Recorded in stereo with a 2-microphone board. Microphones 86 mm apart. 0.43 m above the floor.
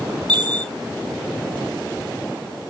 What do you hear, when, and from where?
0.3 s a chime: 65° right (ahead or behind), 2 m